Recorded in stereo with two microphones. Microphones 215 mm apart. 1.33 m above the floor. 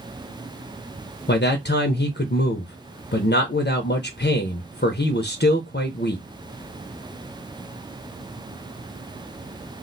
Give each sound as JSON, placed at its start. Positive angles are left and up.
{"t": 1.3, "sound": "a man speaking", "side_deg": 55, "distance_m": 0.5}